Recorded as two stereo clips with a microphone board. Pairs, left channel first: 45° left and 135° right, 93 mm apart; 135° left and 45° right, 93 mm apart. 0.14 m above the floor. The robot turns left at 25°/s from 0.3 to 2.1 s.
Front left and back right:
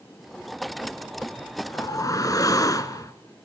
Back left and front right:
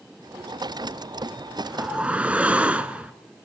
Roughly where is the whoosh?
Ahead left.